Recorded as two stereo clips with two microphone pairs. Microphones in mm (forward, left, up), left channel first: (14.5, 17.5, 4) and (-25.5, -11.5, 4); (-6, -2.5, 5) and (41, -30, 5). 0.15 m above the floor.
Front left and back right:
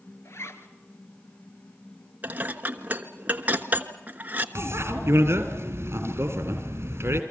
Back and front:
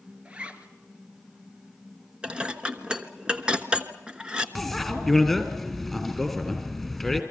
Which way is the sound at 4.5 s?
120° right.